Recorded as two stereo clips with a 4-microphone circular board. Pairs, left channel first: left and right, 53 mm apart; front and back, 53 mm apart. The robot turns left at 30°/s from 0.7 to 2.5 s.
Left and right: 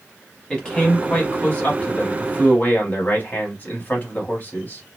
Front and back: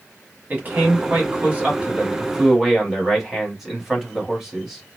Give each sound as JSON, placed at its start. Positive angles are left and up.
{"t": 0.5, "sound": "a man speaking", "azimuth_deg": 155, "distance_m": 1.2}